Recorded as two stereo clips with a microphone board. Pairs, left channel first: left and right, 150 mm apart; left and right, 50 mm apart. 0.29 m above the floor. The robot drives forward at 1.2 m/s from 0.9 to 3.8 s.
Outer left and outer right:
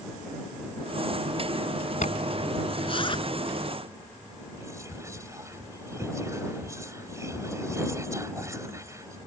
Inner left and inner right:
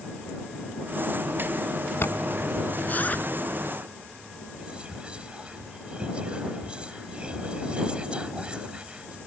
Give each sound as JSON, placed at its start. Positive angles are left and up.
{"t": 2.0, "sound": "a zipper", "side_deg": 60}
{"t": 4.5, "sound": "whispering", "side_deg": -20}